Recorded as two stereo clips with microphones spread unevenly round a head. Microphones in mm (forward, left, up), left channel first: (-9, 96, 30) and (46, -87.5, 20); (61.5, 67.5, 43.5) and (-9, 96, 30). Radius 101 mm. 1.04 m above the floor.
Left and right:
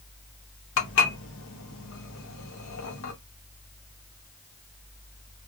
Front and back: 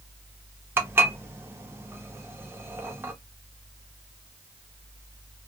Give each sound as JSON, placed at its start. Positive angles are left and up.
{"t": 0.8, "sound": "dishes clattering", "azimuth_deg": 95, "distance_m": 0.8}